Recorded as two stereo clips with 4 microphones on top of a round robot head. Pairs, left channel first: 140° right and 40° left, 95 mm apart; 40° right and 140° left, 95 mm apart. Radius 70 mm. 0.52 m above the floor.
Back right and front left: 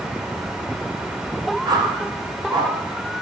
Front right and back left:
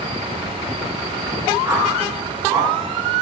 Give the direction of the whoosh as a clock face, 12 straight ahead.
9 o'clock.